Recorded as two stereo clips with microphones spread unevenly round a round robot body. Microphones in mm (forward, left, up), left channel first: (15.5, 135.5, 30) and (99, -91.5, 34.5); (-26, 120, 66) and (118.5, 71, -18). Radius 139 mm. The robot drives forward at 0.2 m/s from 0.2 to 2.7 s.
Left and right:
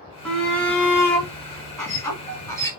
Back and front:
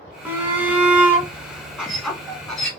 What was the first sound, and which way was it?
A shout, 20° left.